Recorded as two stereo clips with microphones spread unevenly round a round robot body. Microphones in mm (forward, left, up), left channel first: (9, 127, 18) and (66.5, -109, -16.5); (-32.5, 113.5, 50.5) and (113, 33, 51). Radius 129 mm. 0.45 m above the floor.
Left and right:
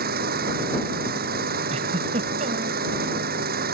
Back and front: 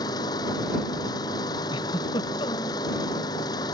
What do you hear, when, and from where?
0.0 s an engine running: 135° right
1.7 s a giggle: 140° right